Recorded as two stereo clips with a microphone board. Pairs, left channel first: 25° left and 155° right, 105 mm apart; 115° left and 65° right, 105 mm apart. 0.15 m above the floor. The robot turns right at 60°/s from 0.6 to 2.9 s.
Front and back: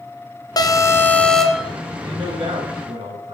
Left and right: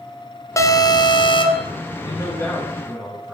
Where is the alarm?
60° left, 1.9 m; by 1.7 s 125° left, 1.9 m.